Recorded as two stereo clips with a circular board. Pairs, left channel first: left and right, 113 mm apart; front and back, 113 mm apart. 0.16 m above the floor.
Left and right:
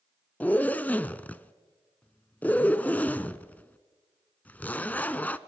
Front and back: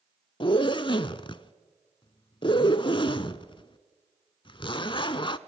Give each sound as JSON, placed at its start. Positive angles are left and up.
{"t": 0.4, "sound": "a zipper", "azimuth_deg": 20, "distance_m": 0.5}